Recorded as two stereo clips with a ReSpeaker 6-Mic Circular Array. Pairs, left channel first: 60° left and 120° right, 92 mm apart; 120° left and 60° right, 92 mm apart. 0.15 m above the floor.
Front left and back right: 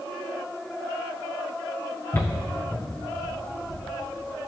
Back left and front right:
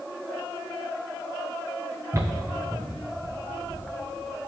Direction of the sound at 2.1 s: Straight ahead.